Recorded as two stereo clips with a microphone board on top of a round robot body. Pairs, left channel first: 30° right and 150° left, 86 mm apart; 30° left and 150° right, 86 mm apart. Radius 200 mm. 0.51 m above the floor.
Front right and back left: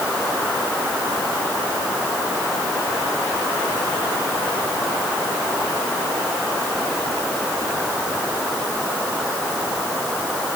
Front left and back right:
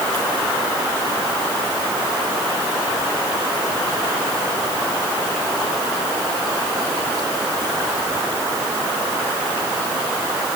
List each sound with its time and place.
Only background noise.